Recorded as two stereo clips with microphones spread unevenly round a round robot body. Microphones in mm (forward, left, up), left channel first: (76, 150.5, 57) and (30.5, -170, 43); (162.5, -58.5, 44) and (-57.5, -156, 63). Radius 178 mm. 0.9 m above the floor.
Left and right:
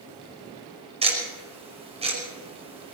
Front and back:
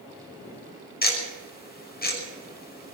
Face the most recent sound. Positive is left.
turn(degrees=-25)